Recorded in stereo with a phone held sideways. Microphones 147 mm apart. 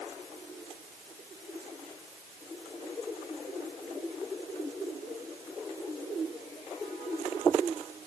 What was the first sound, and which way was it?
Only background noise.